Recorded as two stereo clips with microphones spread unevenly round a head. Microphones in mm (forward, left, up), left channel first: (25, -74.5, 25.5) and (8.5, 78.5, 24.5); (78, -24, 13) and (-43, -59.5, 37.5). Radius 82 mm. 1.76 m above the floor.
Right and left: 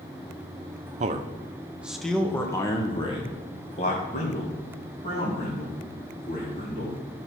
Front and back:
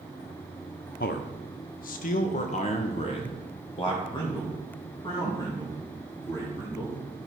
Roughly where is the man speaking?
Ahead left.